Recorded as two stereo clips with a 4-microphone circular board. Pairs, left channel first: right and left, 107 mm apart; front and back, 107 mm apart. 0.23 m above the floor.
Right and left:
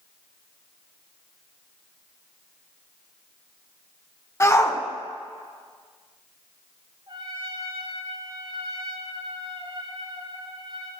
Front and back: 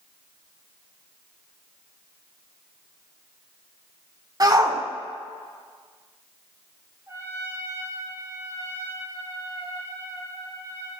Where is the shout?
145° right, 1.5 m.